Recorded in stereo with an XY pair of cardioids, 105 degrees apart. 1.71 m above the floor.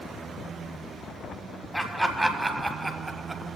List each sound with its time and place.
1.7 s laughter: straight ahead, 1.8 m; by 3.6 s 25° right, 0.9 m